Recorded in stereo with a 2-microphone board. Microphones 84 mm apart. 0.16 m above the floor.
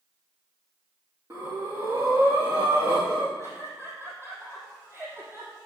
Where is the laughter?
30° right (ahead or behind), 6 m.